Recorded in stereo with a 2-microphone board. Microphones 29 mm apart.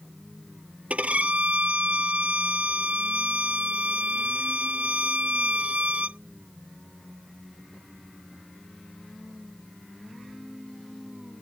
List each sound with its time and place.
0.9 s a violin: 55° right (ahead or behind)